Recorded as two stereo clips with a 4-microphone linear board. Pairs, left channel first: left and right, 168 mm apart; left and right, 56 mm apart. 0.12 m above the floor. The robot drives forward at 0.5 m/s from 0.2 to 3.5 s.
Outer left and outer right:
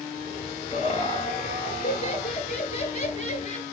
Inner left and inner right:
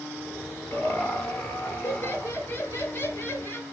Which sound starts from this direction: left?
Laughter, at 0.7 s.